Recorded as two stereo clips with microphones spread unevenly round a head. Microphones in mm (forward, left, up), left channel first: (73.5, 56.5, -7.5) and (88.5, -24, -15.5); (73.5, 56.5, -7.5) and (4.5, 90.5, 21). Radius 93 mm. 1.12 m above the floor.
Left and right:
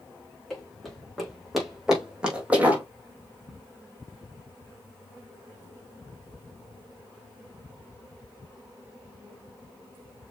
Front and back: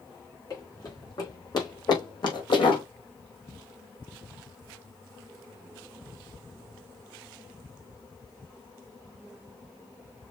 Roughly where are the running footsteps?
Ahead.